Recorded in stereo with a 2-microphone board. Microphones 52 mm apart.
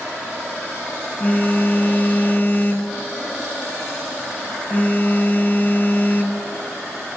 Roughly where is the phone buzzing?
Left.